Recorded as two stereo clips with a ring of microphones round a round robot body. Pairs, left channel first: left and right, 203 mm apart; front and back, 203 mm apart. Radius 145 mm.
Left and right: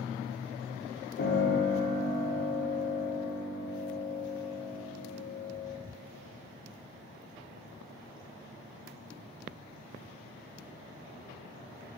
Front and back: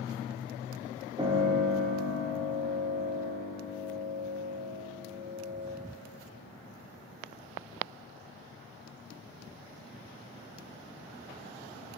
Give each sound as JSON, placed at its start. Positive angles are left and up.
{"t": 1.2, "sound": "a piano", "azimuth_deg": 115, "distance_m": 0.9}